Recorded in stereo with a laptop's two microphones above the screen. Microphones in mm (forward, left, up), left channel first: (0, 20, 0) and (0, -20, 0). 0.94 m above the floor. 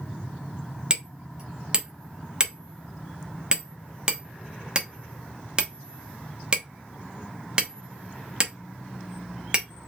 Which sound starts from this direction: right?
Hammering, at 0.9 s.